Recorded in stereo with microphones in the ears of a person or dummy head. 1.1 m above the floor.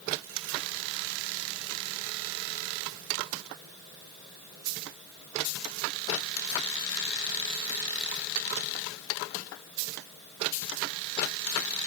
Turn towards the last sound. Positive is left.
No sound to turn to.